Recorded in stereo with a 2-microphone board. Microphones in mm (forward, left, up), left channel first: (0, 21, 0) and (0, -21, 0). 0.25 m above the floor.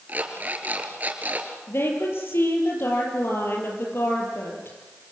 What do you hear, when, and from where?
0.1 s an alarm clock: 40° right (ahead or behind), 3 m
1.7 s a woman speaking: 70° left (ahead or behind), 7.5 m